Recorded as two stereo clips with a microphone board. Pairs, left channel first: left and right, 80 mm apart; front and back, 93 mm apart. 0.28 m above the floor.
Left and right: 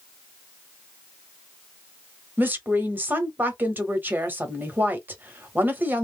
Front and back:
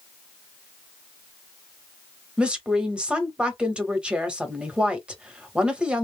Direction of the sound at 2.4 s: 115° right.